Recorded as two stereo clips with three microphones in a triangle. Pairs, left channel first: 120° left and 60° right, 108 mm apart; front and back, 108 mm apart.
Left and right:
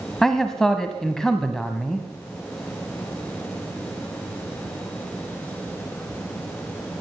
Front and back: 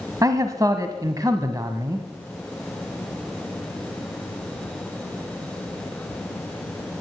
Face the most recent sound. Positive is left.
turn(degrees=-160)